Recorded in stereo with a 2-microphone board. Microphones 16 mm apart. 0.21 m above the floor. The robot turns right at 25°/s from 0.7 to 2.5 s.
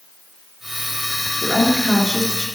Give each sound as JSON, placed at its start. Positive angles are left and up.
{"t": 1.4, "sound": "a woman speaking", "side_deg": 60, "distance_m": 3.5}